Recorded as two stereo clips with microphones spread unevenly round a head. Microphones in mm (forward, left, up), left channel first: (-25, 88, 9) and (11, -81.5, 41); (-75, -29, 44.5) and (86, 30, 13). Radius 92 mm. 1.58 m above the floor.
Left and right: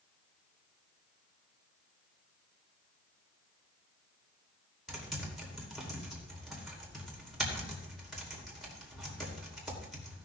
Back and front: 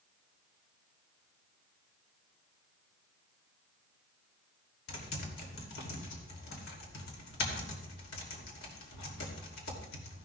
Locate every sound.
4.9 s typing on a keyboard: 165° right, 2.5 m